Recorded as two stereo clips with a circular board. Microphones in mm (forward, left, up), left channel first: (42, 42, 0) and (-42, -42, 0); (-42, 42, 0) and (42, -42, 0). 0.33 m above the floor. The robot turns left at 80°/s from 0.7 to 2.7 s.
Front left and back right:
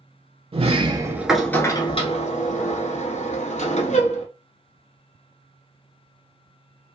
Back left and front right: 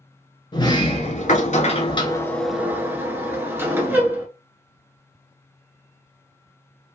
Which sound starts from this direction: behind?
A sliding door, at 0.5 s.